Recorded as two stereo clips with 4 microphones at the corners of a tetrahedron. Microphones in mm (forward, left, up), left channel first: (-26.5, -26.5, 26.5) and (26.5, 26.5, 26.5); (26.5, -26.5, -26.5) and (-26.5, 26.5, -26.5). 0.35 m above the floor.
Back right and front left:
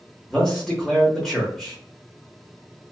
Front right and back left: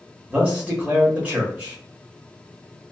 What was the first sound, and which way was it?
A man speaking, 155° left.